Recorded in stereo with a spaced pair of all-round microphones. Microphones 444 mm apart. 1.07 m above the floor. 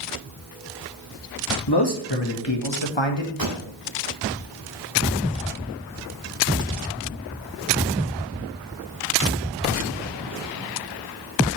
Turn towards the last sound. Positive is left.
turn(degrees=-50)  # may be behind; listen again after turning